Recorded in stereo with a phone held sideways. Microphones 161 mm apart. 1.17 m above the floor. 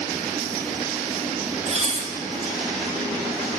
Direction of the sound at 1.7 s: 45° right (ahead or behind).